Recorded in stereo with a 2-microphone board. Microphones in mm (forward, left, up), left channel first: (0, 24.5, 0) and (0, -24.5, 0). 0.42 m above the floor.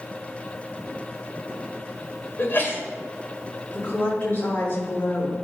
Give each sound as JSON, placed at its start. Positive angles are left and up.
{"t": 2.4, "sound": "a sneeze", "side_deg": 45, "distance_m": 2.0}
{"t": 3.7, "sound": "a woman speaking", "side_deg": 40, "distance_m": 3.0}